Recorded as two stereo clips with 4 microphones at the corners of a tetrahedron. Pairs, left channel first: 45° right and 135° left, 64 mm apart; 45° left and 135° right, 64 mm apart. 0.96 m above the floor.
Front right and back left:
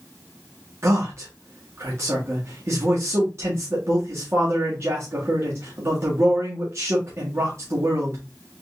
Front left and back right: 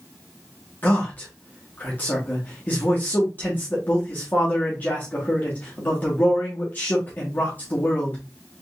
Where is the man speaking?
100° left, 1.2 m.